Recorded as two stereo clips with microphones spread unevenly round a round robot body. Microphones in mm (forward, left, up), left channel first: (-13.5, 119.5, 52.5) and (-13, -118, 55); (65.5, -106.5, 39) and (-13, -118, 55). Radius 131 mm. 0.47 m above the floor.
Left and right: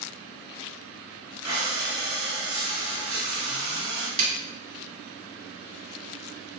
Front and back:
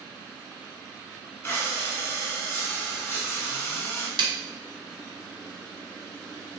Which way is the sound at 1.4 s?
30° right.